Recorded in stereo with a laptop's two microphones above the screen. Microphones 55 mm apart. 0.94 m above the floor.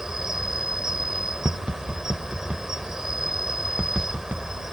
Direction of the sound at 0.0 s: 10° right (ahead or behind).